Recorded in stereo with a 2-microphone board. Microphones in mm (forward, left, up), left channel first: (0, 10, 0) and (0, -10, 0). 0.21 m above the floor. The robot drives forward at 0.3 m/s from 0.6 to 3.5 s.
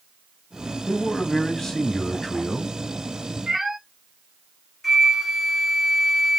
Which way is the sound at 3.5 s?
15° right (ahead or behind).